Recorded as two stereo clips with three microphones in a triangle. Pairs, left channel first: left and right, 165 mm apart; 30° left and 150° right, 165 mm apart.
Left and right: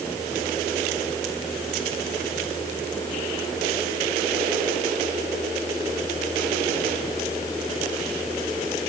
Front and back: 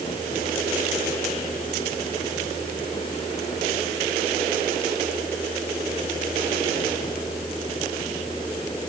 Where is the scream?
I don't hear a scream.